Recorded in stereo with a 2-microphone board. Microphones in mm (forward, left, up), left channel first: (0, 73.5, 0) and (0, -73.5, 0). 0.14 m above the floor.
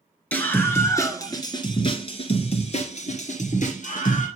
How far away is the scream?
About 2.5 m.